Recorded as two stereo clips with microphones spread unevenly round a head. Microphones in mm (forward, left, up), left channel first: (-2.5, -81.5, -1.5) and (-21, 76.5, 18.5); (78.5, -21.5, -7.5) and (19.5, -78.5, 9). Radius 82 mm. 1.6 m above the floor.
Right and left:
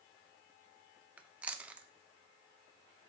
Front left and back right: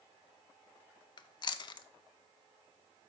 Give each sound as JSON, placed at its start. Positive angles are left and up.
{"t": 1.2, "sound": "chewing", "azimuth_deg": 20, "distance_m": 0.5}